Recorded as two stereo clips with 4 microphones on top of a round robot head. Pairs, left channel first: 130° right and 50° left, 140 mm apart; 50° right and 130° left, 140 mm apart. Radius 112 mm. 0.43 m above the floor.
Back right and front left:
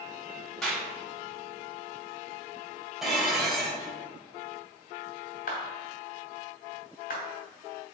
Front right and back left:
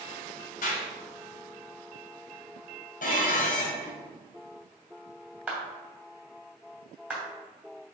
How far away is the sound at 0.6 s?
About 3 m.